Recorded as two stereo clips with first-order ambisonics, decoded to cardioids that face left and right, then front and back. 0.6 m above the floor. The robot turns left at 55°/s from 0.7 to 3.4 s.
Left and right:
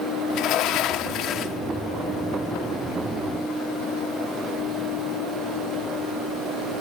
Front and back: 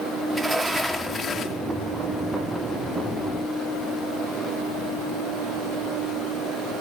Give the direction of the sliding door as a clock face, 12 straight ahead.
9 o'clock.